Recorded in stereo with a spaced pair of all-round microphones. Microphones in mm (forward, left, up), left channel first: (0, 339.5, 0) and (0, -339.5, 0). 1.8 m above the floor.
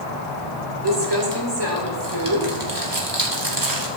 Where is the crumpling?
35° right (ahead or behind), 3 m.